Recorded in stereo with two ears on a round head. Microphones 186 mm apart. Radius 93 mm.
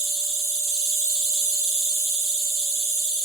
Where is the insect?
15° right (ahead or behind), 1.8 m.